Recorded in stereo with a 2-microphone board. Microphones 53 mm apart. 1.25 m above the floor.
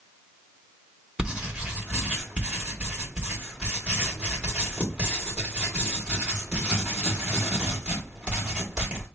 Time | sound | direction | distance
1.2 | writing | 25° right (ahead or behind) | 2 m